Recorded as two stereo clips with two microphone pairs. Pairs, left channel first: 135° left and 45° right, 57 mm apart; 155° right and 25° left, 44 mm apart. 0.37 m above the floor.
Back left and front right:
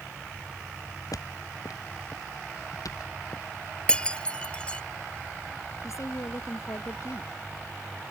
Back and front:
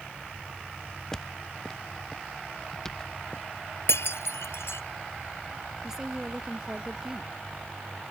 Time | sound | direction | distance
1.1 | footsteps | 125° left | ?
3.9 | breaking glass | 155° right | ?
5.8 | a woman speaking | 105° left | ?